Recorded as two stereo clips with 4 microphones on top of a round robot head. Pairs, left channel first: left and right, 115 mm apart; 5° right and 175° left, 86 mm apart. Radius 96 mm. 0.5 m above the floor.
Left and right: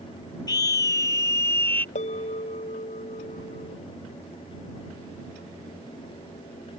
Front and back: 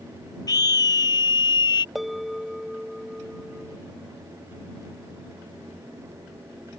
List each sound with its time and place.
0.5 s a scream: 30° left; by 1.9 s 15° left
1.9 s a bell: 85° left